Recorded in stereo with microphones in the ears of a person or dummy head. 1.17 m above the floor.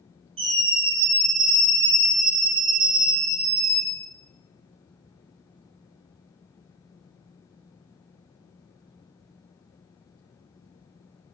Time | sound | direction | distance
0.4 | a scream | 35° right (ahead or behind) | 6.5 m